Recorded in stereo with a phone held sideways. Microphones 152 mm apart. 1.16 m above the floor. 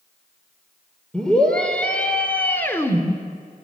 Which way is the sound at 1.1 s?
5° left (ahead or behind).